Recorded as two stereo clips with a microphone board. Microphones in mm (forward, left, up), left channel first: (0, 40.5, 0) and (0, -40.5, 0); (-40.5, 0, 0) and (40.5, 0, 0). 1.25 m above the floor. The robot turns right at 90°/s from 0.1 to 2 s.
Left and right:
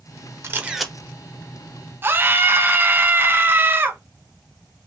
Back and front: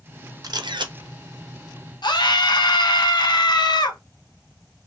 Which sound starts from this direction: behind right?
A scream, at 2.0 s.